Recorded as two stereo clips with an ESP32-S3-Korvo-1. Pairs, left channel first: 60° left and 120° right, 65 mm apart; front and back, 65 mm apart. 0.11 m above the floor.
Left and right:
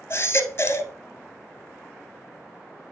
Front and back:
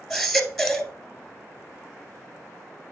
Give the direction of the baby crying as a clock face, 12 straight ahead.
9 o'clock.